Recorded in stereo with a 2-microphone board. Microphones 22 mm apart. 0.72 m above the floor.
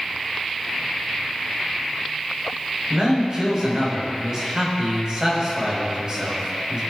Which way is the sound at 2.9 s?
40° right (ahead or behind).